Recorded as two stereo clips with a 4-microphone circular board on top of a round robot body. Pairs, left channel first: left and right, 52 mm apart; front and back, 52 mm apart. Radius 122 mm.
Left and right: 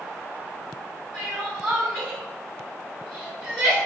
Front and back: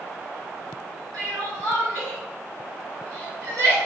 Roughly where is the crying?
Behind.